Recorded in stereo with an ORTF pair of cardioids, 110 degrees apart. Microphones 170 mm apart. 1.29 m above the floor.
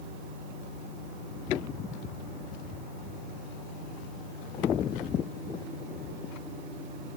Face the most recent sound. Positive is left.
turn(degrees=-50)